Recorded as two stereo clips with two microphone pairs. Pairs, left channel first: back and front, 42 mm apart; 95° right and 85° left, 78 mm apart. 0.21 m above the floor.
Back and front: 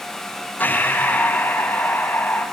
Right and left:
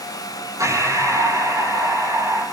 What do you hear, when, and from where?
0.6 s breathing: 135° left, 4.5 m